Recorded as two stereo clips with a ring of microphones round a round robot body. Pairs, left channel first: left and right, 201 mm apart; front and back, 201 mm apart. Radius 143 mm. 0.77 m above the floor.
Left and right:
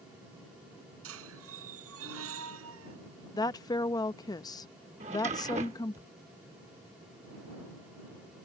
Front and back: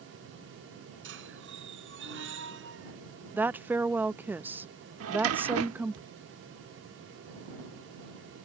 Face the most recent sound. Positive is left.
turn(degrees=-160)